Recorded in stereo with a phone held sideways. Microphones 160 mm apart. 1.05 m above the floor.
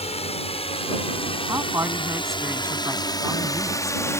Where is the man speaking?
15° right (ahead or behind).